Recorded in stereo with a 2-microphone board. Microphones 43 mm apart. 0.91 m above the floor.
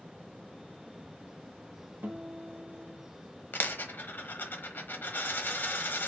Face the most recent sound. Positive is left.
turn(degrees=50)  # may be behind; listen again after turning